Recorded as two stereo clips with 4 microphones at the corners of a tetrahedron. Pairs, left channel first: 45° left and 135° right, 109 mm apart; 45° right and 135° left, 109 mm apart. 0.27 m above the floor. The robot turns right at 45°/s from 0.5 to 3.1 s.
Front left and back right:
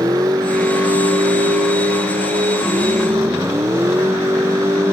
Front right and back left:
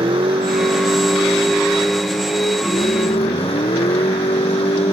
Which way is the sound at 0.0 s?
170° left.